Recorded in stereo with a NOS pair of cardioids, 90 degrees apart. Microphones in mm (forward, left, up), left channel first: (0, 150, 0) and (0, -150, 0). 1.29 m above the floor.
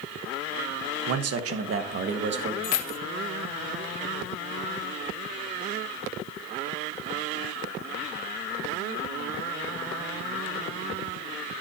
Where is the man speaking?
60° right, 1.1 m; by 2.5 s 35° right, 2.0 m.